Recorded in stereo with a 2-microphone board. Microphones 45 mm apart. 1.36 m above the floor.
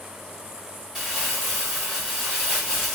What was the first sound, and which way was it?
Crumpling, 5° right (ahead or behind).